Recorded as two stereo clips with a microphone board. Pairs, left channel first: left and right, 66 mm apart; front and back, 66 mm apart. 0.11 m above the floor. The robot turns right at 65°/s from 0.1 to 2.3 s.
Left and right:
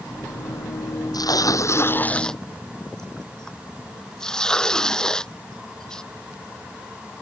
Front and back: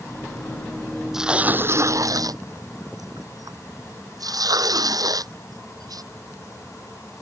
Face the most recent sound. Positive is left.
turn(degrees=170)